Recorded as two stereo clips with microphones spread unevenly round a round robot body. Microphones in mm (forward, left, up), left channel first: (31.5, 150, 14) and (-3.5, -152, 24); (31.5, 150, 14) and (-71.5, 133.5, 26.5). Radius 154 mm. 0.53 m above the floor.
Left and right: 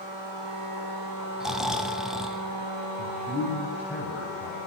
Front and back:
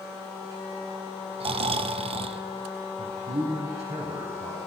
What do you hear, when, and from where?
1.4 s snoring: 175° left, 0.9 m
3.0 s a man speaking: straight behind, 3.5 m